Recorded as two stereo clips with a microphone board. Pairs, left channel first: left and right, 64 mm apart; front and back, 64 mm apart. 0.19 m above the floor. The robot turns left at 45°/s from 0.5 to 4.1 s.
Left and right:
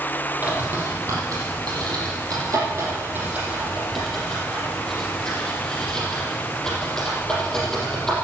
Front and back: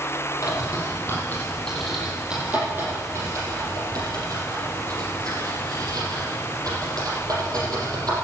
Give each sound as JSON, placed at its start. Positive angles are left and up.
{"t": 0.4, "sound": "a bird", "azimuth_deg": -25, "distance_m": 6.0}